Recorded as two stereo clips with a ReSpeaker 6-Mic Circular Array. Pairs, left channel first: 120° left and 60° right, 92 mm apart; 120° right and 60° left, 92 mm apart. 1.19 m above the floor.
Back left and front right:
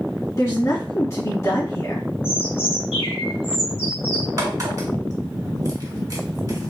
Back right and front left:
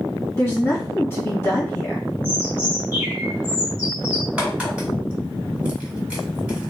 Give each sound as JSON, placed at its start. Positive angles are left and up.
{"t": 0.4, "sound": "a woman speaking", "azimuth_deg": 175, "distance_m": 1.9}
{"t": 2.2, "sound": "a bird", "azimuth_deg": 130, "distance_m": 1.7}
{"t": 4.4, "sound": "a crack", "azimuth_deg": -15, "distance_m": 1.7}